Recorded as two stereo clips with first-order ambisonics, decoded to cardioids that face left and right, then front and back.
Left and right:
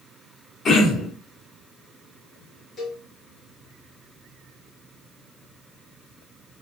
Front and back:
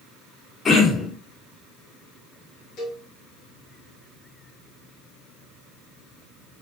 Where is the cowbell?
30° left, 1.2 m.